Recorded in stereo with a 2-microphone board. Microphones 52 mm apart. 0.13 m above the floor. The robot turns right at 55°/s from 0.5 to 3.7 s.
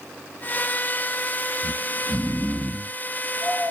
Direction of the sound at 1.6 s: Centre (ahead or behind).